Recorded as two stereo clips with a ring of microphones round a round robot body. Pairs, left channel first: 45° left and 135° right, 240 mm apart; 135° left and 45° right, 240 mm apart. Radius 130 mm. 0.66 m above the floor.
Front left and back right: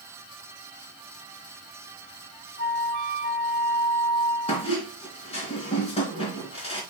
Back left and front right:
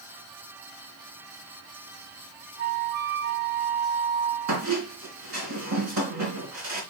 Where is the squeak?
25° right, 3 m.